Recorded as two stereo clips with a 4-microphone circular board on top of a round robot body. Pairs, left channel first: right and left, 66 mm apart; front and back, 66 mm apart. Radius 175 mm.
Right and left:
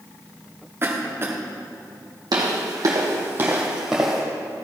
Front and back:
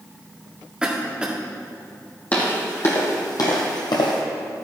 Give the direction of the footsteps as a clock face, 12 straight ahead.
10 o'clock.